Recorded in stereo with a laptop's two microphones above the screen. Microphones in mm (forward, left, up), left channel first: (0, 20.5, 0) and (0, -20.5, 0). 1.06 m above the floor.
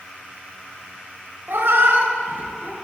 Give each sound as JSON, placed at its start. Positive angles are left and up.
{"t": 1.5, "sound": "a cat meowing", "side_deg": -65, "distance_m": 1.5}